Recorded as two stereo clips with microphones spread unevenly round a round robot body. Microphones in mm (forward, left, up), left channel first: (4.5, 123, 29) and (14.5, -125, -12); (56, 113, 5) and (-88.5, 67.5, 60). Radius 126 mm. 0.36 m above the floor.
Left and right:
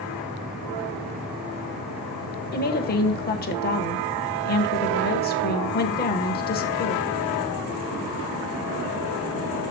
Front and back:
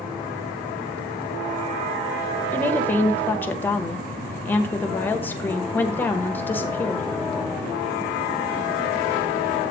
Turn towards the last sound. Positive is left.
turn(degrees=50)